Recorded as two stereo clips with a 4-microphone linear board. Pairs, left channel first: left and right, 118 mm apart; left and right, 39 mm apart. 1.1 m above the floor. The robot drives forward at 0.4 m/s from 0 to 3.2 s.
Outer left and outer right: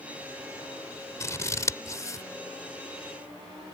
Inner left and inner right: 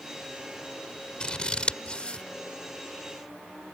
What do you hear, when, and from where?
1.2 s scissors: 25° left (ahead or behind); by 2.2 s 30° left (ahead or behind)